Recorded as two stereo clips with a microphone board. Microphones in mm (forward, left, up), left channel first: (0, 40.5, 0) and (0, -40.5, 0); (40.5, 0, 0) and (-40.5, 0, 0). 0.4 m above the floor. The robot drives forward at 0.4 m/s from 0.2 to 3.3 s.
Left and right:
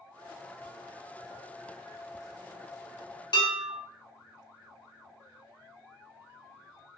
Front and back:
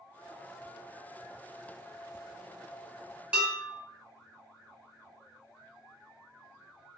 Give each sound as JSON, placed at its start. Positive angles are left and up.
{"t": 3.3, "sound": "dishes clattering", "azimuth_deg": 105, "distance_m": 1.5}